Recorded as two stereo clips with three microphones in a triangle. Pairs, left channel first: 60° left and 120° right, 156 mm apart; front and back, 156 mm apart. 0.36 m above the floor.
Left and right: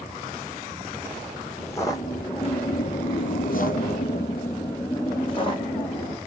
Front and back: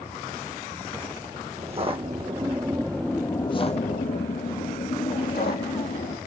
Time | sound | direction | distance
1.6 | footsteps | 135° left | 1.1 m